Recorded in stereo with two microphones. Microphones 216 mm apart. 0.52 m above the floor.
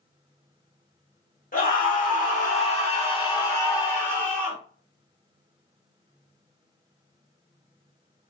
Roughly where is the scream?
Left.